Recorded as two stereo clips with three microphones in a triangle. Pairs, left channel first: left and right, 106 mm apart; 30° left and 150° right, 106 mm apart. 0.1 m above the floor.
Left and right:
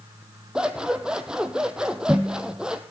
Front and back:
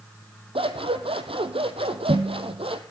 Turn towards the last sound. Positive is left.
turn(degrees=-170)